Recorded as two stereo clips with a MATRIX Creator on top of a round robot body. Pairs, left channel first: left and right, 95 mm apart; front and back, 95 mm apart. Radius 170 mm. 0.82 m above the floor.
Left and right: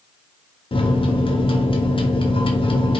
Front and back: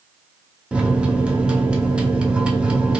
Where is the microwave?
100° left, 0.7 m.